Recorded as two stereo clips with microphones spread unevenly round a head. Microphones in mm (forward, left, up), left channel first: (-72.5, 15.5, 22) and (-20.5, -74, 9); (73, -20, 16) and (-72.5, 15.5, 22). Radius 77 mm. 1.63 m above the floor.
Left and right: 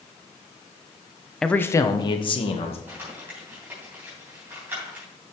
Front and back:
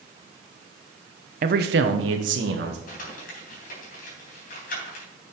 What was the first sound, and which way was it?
A man speaking, 155° right.